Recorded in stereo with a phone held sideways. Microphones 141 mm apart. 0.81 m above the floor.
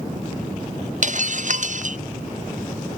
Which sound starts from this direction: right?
Breaking glass, at 1.0 s.